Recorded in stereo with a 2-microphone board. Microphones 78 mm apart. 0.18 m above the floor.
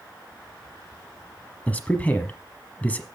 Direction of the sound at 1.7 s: 20° left (ahead or behind).